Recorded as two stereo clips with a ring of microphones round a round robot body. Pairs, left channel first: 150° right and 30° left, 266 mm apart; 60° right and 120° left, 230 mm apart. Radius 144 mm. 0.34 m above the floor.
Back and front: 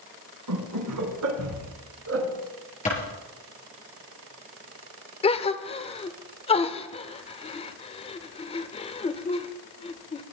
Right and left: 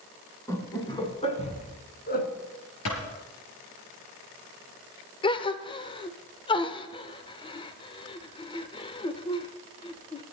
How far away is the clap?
About 6 m.